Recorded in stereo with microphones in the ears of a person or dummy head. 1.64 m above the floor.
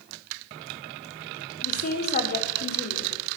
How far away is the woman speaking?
About 5.5 m.